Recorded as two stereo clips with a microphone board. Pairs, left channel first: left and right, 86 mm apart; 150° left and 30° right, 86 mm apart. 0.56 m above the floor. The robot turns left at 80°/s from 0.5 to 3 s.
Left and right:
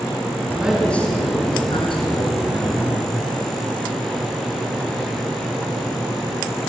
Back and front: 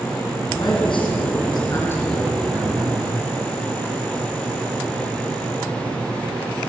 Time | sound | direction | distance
0.5 | a man speaking | 160° right | 6 m